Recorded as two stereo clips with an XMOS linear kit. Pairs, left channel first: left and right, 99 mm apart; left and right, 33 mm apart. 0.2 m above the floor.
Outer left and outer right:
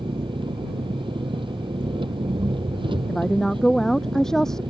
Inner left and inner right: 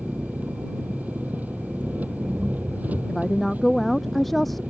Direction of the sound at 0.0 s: 60° right (ahead or behind).